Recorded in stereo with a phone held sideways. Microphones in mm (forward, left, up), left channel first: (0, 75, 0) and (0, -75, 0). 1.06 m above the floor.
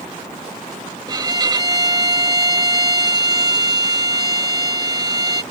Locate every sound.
1.1 s a violin: 25° right (ahead or behind)